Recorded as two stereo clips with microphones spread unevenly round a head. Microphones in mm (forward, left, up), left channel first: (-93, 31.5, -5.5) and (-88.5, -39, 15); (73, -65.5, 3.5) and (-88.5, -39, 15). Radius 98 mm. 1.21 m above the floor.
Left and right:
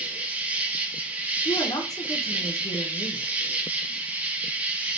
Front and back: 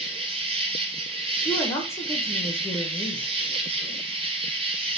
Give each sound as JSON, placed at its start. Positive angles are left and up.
{"t": 0.0, "sound": "an insect", "azimuth_deg": -165, "distance_m": 1.0}
{"t": 1.4, "sound": "a woman speaking", "azimuth_deg": 65, "distance_m": 0.9}